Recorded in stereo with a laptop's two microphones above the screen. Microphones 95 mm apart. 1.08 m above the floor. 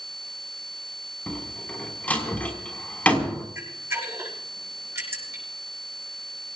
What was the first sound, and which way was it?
A door slam, 15° left (ahead or behind).